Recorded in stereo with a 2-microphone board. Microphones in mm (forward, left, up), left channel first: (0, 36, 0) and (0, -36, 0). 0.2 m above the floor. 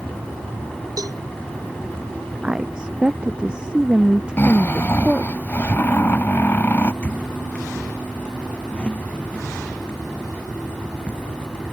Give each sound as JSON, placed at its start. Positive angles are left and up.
{"t": 1.0, "sound": "a cowbell", "side_deg": -60}
{"t": 2.4, "sound": "a woman speaking", "side_deg": -10}
{"t": 4.4, "sound": "snoring", "side_deg": 30}
{"t": 7.0, "sound": "a squeak", "side_deg": 20}